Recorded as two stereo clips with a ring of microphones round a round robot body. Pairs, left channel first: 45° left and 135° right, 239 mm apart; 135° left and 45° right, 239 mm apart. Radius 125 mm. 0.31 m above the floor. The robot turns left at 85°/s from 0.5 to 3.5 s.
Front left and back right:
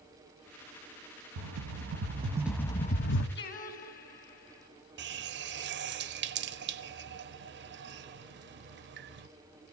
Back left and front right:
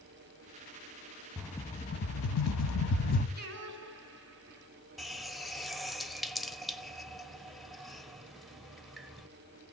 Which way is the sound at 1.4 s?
125° right.